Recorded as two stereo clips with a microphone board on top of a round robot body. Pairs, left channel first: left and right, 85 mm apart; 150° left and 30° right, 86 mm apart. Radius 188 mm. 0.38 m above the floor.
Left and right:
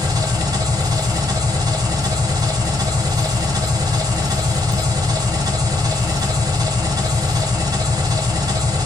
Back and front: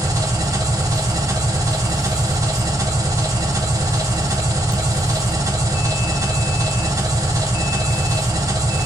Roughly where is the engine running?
Ahead right.